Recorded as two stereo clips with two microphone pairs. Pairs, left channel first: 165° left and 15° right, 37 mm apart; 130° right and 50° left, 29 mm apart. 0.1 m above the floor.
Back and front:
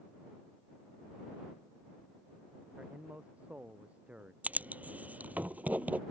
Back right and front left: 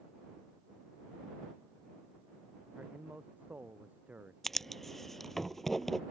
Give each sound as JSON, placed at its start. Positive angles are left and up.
{"t": 2.8, "sound": "a man speaking", "azimuth_deg": 35}
{"t": 4.4, "sound": "writing", "azimuth_deg": -50}